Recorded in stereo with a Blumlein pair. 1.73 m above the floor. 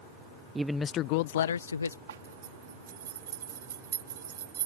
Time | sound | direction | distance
0.6 | a man speaking | 10° right | ?
2.1 | a zipper | 60° right | ?